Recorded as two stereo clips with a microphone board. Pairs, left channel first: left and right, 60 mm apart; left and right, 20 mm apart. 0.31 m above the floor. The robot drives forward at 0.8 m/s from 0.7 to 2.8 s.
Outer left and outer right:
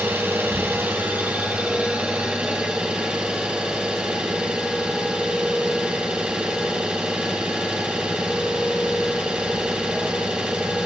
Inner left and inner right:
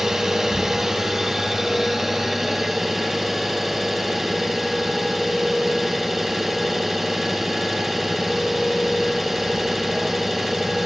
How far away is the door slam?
No door slam in this recording.